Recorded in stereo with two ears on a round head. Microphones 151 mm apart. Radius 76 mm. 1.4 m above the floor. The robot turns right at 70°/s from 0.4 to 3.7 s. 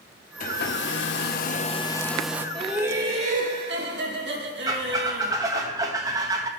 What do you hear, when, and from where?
0.4 s a hair dryer: 50° left, 0.7 m; by 2.5 s 165° right, 0.7 m
2.5 s laughter: 175° left, 2 m; by 5.3 s 105° right, 2 m
4.7 s a squeak: 20° right (ahead or behind), 0.9 m